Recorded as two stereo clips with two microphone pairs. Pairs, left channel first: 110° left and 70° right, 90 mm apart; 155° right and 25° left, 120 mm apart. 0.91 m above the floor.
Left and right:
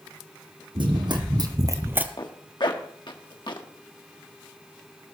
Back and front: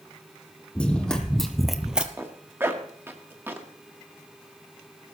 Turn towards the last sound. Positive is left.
turn(degrees=95)